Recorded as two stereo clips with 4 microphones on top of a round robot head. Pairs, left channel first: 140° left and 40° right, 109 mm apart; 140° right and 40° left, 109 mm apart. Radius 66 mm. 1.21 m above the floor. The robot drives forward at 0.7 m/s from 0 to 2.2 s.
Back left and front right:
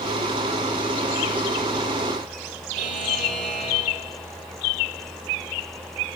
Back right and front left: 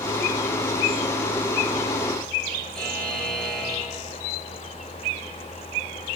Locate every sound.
2.8 s a buzzer: 60° right, 7 m